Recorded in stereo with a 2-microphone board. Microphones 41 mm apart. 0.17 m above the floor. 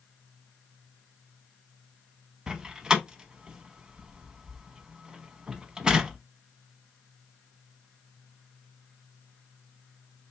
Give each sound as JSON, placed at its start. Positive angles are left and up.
{"t": 2.5, "sound": "a door slam", "side_deg": -20, "distance_m": 0.7}